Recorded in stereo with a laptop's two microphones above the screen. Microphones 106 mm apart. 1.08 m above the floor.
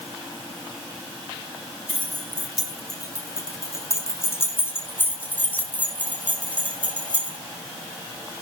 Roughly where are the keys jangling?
Left.